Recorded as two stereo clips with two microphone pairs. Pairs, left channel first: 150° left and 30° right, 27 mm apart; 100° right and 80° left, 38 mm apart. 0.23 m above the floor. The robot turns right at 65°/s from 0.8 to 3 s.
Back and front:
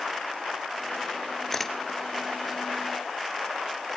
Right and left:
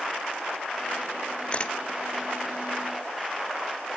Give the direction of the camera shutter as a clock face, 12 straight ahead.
4 o'clock.